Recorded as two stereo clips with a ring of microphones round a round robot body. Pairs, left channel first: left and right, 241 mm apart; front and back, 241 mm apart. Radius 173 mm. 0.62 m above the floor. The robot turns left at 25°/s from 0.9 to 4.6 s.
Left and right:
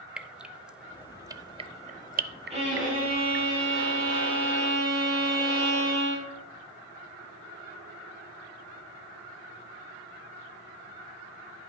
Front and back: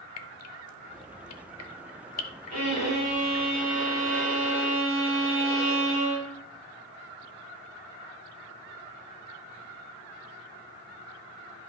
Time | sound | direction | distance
0.2 | dripping | 5° right | 0.6 m
2.5 | a violin | 25° right | 4.5 m